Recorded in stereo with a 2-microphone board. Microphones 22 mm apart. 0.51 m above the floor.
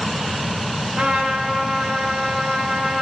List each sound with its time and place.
1.0 s a trumpet: 45° right (ahead or behind), 1.1 m